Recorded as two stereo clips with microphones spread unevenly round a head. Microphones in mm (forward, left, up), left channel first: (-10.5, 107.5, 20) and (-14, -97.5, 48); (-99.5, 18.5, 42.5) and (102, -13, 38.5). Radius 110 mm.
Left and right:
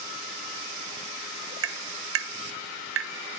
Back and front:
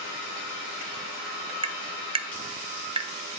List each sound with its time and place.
1.6 s tapping: 70° right, 1.0 m